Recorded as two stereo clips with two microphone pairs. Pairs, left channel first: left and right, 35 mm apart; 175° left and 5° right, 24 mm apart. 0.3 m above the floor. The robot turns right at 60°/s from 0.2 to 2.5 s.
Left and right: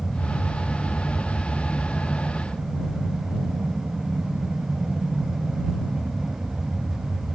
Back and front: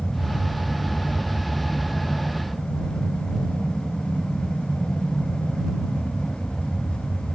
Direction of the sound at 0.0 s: 110° left.